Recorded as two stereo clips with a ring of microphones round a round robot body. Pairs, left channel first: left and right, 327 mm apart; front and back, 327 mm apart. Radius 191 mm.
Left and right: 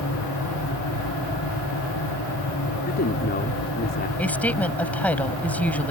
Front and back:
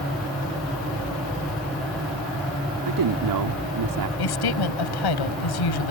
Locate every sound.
2.8 s a man speaking: 155° left
4.2 s a woman speaking: 5° left